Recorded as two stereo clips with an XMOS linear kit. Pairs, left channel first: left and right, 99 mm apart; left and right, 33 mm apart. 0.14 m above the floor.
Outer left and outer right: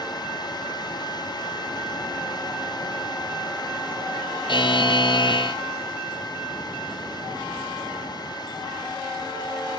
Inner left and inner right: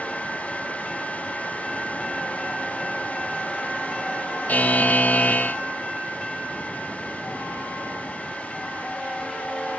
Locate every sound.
4.5 s a buzzer: 50° left (ahead or behind), 0.7 m